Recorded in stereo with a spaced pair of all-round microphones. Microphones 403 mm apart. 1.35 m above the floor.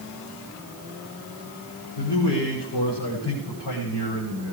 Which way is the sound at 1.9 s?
85° left.